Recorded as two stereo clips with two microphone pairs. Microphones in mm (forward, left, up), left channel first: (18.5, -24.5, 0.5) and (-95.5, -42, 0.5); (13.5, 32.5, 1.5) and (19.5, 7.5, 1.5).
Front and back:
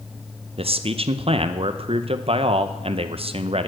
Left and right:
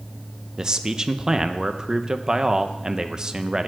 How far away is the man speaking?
About 0.6 m.